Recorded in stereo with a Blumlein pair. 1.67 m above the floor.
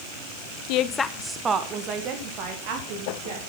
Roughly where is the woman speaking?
Ahead left.